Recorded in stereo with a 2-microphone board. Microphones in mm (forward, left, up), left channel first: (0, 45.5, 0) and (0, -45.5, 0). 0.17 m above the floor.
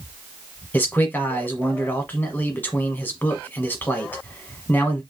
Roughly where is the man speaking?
Centre.